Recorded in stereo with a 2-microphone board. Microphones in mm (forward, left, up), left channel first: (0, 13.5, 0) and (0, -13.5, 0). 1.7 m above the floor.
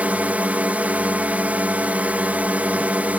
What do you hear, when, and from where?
0.0 s a drone: 70° right (ahead or behind)